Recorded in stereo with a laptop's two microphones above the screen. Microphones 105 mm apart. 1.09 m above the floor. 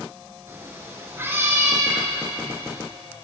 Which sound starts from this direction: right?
A cat meowing, at 0.5 s.